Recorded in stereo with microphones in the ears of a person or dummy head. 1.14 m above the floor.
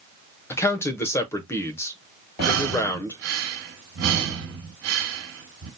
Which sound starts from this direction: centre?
A man speaking, at 0.5 s.